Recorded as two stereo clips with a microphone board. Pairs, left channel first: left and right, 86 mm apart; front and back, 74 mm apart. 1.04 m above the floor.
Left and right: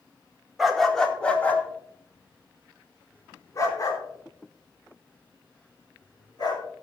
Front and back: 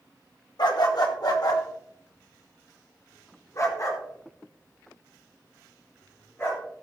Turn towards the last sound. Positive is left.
turn(degrees=50)